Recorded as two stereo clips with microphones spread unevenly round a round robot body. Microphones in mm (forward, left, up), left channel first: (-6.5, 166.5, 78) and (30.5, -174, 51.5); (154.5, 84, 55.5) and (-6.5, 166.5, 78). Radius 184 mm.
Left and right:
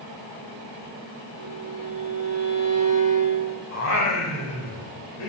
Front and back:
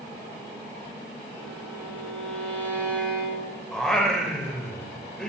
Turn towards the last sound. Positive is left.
turn(degrees=60)